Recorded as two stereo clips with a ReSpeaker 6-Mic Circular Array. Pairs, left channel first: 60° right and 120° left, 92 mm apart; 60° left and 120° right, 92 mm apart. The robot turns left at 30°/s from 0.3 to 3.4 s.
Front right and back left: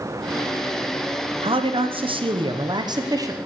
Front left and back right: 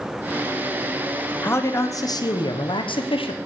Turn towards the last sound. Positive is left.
turn(degrees=65)